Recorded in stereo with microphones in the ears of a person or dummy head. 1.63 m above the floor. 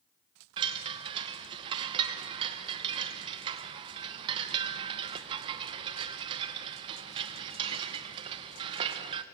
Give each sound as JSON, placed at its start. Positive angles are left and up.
{"t": 0.6, "sound": "a chime", "side_deg": -35, "distance_m": 1.0}